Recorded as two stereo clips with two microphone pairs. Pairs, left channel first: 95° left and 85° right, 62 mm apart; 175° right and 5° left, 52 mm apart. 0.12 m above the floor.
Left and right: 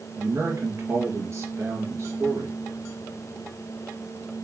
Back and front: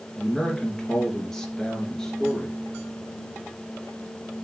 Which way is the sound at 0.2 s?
95° right.